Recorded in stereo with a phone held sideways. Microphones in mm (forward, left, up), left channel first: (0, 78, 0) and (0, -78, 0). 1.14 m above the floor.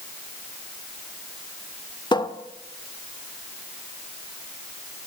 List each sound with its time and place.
2.1 s a cupboard door: 30° left (ahead or behind), 1.2 m